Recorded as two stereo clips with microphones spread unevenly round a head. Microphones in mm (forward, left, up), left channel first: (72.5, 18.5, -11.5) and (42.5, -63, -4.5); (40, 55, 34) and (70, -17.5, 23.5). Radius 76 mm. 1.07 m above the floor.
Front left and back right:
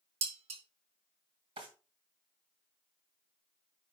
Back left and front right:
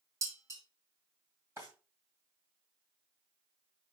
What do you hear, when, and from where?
0.2 s dishes clattering: 135° right, 1.3 m
1.6 s a drawer: 145° right, 2 m